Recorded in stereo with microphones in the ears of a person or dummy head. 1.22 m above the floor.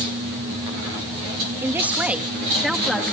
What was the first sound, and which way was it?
A man speaking, 10° right (ahead or behind).